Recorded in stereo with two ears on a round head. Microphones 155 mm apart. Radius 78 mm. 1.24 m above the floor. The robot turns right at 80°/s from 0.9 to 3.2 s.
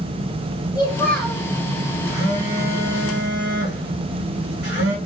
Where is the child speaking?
155° left, 1.8 m; by 1.4 s 165° right, 1.8 m.